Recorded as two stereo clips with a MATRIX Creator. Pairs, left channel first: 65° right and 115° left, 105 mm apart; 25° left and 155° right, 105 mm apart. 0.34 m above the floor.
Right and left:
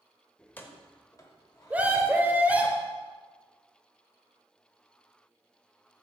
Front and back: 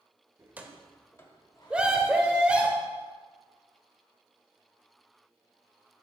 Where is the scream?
150° left, 0.9 m.